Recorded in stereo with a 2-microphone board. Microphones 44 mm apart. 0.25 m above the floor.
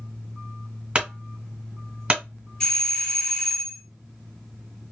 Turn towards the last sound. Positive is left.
turn(degrees=15)  # may be behind; listen again after turning